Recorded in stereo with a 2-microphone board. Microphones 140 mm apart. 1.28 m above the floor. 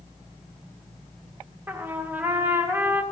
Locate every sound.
1.7 s a trumpet: 15° right (ahead or behind), 0.5 m